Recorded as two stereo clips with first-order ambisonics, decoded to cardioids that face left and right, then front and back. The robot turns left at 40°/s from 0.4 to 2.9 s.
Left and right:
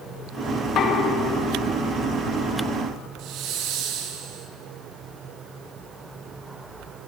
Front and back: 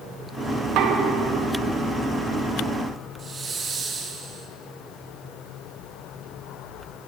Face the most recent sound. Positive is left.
turn(degrees=-115)